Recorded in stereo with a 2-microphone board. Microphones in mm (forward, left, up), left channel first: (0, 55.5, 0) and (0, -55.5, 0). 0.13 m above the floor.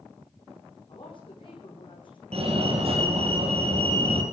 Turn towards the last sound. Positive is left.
turn(degrees=-55)  # may be behind; listen again after turning